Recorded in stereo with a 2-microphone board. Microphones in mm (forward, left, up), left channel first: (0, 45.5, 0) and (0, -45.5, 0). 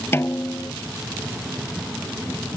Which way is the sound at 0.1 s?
25° left (ahead or behind).